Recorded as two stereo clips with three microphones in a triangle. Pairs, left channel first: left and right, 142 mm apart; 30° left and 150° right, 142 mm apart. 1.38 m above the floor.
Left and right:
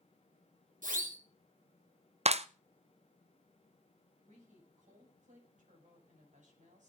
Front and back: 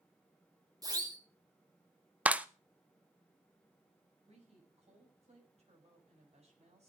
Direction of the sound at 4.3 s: 110° right.